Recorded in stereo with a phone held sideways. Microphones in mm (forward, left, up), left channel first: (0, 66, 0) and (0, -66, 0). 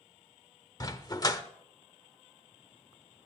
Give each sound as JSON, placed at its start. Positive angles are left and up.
{"t": 0.8, "sound": "a dog barking", "side_deg": 30, "distance_m": 0.9}